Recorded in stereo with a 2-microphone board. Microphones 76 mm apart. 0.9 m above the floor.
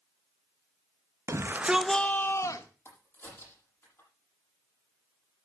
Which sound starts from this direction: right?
A shout, at 1.3 s.